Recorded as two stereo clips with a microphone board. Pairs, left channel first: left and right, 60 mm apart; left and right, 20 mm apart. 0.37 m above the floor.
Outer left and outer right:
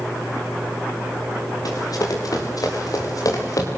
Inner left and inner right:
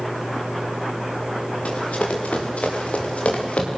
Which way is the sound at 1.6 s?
85° left.